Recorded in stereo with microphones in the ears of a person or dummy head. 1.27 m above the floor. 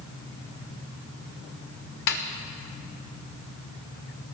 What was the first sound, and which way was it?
A snare drum, 55° left (ahead or behind).